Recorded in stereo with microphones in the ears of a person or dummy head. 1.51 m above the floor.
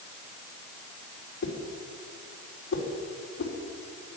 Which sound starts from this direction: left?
A whoosh, at 1.4 s.